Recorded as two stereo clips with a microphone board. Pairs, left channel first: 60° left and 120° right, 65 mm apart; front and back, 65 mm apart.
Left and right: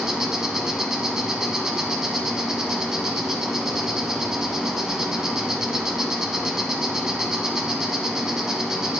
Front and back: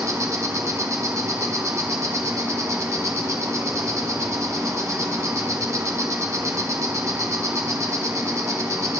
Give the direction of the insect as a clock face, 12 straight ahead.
7 o'clock.